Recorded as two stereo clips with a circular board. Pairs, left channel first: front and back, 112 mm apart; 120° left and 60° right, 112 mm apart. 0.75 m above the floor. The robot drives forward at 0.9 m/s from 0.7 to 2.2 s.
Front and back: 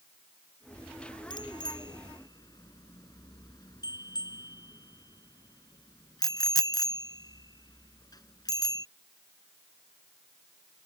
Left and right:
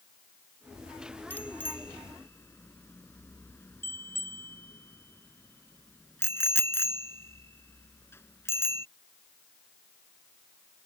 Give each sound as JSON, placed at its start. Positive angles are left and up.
{"t": 1.3, "sound": "a bicycle bell", "azimuth_deg": 45}